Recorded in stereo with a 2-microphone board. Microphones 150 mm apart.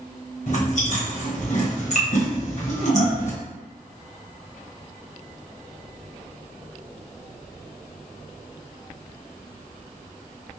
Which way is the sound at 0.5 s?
55° left (ahead or behind).